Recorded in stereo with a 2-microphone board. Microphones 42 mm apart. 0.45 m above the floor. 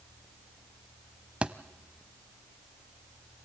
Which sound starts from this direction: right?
A thud, at 1.4 s.